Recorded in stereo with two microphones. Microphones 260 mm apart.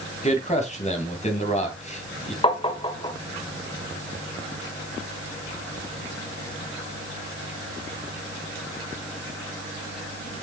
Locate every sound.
0.2 s a man speaking: 25° left (ahead or behind), 2.5 m
2.4 s tapping: 20° left (ahead or behind), 1.2 m